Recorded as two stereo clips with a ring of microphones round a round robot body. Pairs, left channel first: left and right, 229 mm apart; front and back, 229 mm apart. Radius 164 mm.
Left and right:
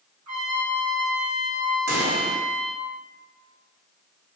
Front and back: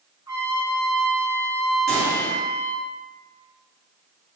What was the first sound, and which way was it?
A trumpet, 100° right.